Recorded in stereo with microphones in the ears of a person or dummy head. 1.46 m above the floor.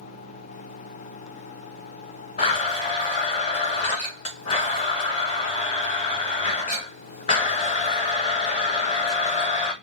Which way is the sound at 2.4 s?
35° left (ahead or behind).